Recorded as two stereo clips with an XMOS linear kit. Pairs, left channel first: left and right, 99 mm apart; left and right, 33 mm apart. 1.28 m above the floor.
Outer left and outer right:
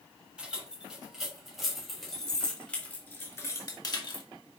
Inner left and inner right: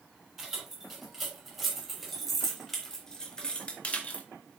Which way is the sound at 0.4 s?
10° right (ahead or behind).